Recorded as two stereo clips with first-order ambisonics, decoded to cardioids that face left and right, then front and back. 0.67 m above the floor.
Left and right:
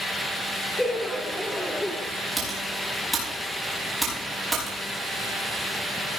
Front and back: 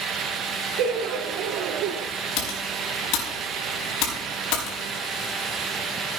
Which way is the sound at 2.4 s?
5° right.